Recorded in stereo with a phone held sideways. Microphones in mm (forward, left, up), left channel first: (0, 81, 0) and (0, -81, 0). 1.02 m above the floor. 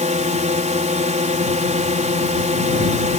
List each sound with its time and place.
0.0 s a drone: 50° right (ahead or behind)